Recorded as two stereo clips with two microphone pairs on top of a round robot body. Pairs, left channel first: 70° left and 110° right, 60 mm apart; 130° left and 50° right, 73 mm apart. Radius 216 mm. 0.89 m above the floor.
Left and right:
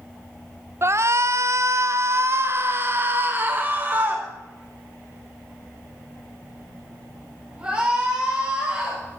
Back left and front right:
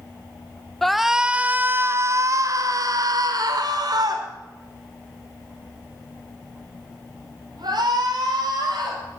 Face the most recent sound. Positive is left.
turn(degrees=-40)